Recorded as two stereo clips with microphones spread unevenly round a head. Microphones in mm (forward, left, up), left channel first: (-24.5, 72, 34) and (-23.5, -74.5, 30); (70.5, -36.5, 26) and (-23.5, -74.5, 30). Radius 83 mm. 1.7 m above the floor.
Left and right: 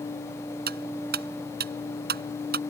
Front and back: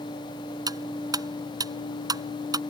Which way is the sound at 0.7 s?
110° right.